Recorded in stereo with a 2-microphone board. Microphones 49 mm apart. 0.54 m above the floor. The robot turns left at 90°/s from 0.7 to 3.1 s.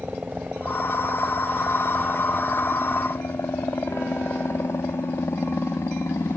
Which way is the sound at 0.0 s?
25° right (ahead or behind).